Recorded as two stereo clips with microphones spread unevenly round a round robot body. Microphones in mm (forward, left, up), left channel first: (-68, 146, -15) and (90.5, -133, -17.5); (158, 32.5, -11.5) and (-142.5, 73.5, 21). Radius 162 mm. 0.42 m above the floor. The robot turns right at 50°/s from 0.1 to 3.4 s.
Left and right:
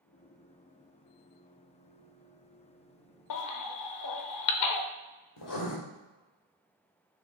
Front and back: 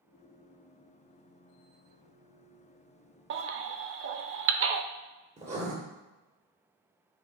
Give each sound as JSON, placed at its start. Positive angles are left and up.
{"t": 3.3, "sound": "a baby crying", "azimuth_deg": 125, "distance_m": 0.6}
{"t": 5.4, "sound": "writing", "azimuth_deg": 110, "distance_m": 2.0}